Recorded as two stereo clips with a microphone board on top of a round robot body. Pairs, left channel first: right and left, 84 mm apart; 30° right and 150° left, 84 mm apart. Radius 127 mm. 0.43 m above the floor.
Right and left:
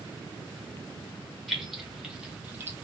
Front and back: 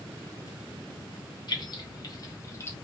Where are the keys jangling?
5° right, 1.5 m; by 2.7 s 30° left, 0.9 m.